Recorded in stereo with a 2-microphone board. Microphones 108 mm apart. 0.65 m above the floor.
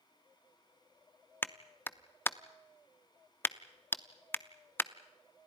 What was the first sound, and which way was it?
A clap, 20° left (ahead or behind).